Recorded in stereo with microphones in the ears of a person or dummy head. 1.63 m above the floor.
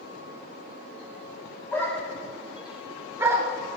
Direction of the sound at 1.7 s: 10° left (ahead or behind).